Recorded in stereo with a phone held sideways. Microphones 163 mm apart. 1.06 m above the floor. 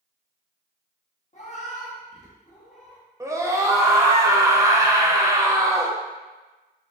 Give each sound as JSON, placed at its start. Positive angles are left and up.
{"t": 1.3, "sound": "a cat meowing", "side_deg": 40, "distance_m": 0.9}
{"t": 3.2, "sound": "a scream", "side_deg": -20, "distance_m": 0.5}